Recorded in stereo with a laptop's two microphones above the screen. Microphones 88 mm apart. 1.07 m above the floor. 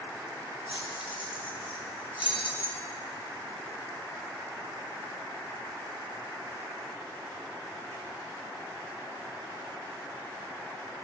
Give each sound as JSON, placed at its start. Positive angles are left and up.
{"t": 0.7, "sound": "keys jangling", "side_deg": 75, "distance_m": 0.8}